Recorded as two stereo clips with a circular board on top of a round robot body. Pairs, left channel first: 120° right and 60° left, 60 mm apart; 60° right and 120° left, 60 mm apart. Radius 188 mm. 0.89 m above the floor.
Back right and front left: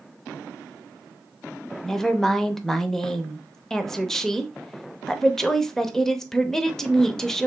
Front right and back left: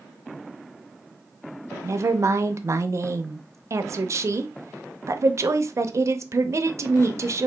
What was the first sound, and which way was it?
A woman speaking, 160° left.